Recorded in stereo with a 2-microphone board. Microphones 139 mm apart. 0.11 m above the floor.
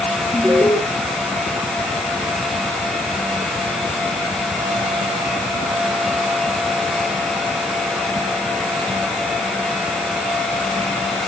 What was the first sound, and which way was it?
An alarm, 15° right (ahead or behind).